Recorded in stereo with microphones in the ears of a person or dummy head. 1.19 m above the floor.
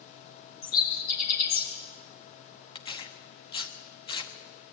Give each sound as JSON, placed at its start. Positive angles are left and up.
{"t": 0.6, "sound": "a bird", "side_deg": 55, "distance_m": 4.0}
{"t": 2.8, "sound": "tearing paper", "side_deg": 30, "distance_m": 1.2}